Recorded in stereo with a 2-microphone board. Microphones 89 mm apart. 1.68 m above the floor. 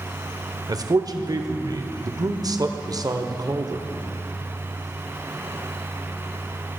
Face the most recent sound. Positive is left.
turn(degrees=-45)  # may be behind; listen again after turning